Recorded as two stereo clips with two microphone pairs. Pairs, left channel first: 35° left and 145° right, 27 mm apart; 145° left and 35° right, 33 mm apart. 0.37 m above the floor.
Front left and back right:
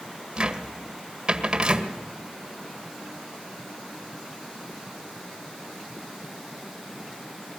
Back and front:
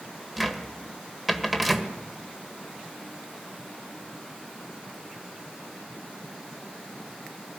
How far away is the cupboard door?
About 1.7 m.